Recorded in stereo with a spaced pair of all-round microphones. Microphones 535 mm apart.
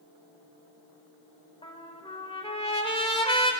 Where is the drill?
No drill in this recording.